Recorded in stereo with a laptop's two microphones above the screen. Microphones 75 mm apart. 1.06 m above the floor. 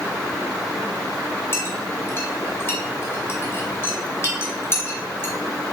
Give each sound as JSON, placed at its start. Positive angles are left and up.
{"t": 1.5, "sound": "a clink", "side_deg": 35, "distance_m": 2.0}